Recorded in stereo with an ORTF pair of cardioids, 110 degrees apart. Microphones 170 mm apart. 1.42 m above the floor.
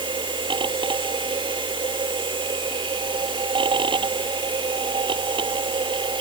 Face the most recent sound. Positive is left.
turn(degrees=-30)